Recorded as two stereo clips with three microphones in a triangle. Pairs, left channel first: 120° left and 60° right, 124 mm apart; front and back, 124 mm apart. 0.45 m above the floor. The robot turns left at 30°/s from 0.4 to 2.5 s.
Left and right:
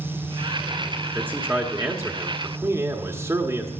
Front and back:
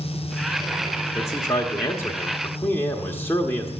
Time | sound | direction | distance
1.1 | a man speaking | 5° right | 1.2 m